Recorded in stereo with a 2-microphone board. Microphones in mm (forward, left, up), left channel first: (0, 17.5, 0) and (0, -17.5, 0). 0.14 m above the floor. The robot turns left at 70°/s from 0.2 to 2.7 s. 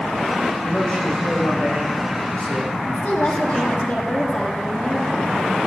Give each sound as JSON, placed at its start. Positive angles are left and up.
{"t": 0.6, "sound": "a man speaking", "azimuth_deg": 170, "distance_m": 7.0}
{"t": 2.9, "sound": "a woman speaking", "side_deg": 50, "distance_m": 6.0}